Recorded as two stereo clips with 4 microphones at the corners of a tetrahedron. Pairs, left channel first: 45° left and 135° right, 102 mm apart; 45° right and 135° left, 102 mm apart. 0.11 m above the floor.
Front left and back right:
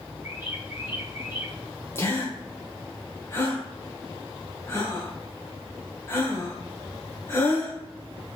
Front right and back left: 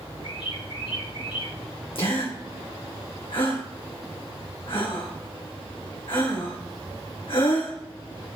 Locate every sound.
0.2 s a bird: 70° right, 4 m
1.9 s a gasp: 20° right, 3 m